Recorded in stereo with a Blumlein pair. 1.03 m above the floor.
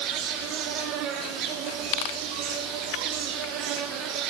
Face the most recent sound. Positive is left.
turn(degrees=-40)